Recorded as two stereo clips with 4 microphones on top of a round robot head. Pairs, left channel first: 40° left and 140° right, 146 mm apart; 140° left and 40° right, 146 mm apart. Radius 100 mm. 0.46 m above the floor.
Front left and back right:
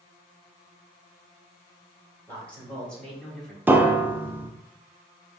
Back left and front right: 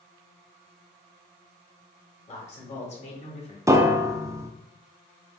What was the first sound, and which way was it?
A man speaking, 115° left.